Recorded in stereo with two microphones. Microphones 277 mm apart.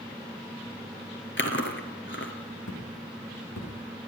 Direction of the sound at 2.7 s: 90° left.